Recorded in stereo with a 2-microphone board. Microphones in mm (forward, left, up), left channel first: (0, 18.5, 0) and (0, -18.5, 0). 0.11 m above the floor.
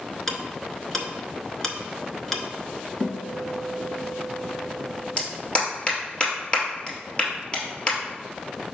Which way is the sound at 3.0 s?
45° left (ahead or behind).